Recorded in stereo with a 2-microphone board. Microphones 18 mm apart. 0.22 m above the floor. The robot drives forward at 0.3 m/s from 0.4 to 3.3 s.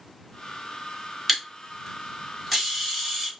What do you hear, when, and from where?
1.3 s a camera shutter: centre (ahead or behind), 1.5 m